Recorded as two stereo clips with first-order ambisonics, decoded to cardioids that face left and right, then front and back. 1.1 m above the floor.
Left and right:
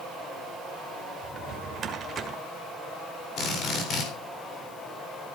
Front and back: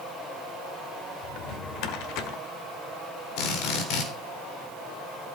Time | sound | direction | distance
1.2 | a drawer | 25° right | 1.8 m
3.4 | a drill | 35° left | 3.5 m